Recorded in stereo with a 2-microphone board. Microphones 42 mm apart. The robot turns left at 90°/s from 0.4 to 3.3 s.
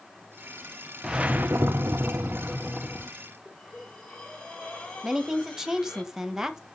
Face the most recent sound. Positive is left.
turn(degrees=-10)  # may be behind; listen again after turning